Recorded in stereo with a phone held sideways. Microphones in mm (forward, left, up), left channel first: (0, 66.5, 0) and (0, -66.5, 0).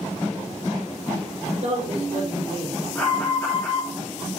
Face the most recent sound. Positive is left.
turn(degrees=10)  # may be behind; listen again after turning